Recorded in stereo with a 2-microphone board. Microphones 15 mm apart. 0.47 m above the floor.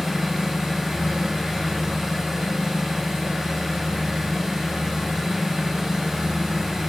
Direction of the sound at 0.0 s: 55° right (ahead or behind).